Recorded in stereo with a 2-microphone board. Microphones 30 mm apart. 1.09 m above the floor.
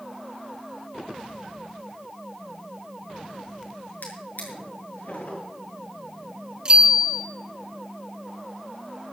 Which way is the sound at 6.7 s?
35° right (ahead or behind).